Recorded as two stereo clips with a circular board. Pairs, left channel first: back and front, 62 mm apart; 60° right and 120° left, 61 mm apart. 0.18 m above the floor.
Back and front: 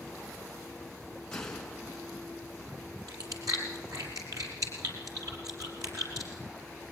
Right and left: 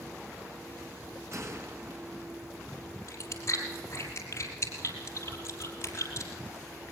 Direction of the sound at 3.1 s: 20° right.